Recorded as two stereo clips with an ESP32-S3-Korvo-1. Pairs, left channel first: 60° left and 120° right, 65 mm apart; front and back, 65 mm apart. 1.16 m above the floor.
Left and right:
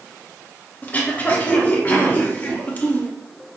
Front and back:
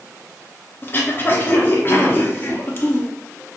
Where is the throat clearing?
20° left, 0.6 m.